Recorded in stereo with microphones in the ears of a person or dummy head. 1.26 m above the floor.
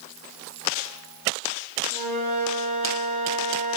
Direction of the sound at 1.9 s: 40° right (ahead or behind).